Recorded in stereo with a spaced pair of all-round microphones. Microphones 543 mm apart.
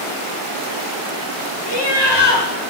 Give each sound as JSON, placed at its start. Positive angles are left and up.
{"t": 1.7, "sound": "laughter", "side_deg": 50, "distance_m": 1.4}